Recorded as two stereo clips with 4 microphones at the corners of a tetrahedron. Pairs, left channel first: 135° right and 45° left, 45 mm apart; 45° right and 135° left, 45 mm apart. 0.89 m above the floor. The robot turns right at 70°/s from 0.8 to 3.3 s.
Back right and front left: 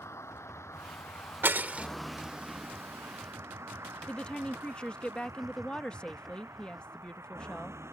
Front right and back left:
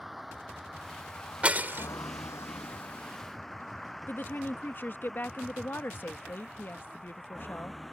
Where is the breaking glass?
75° left; by 1.9 s 105° left.